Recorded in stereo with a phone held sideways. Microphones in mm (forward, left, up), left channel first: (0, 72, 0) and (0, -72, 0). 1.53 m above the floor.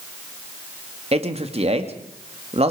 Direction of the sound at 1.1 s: 45° right (ahead or behind).